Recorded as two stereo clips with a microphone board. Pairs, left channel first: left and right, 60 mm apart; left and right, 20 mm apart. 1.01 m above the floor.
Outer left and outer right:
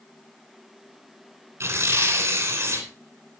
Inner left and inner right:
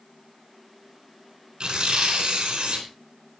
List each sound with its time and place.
1.6 s tearing paper: 45° right (ahead or behind), 3.5 m